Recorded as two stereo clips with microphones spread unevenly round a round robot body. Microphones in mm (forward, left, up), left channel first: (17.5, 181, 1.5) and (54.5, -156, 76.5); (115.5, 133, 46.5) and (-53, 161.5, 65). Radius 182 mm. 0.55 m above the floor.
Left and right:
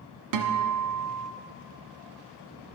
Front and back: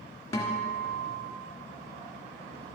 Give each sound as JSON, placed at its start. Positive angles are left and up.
{"t": 0.3, "sound": "a guitar", "azimuth_deg": -70, "distance_m": 1.4}